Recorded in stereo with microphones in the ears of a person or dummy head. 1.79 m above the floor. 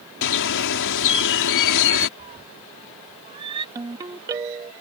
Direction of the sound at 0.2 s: 65° left (ahead or behind).